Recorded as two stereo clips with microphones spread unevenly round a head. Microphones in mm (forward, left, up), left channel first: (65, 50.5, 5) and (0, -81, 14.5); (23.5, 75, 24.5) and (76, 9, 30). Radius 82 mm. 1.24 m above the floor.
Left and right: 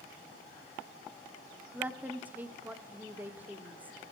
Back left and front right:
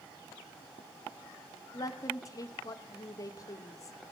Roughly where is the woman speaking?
Behind.